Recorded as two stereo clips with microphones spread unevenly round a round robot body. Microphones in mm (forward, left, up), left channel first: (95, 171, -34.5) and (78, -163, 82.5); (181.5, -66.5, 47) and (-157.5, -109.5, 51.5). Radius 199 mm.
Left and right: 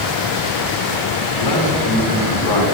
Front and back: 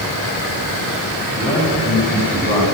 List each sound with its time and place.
1.3 s a man speaking: 75° left, 6 m